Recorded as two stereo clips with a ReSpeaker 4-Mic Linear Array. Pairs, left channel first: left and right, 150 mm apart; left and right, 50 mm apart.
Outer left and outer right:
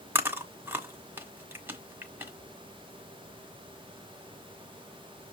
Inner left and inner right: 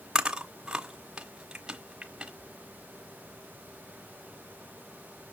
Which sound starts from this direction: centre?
Chewing, at 0.1 s.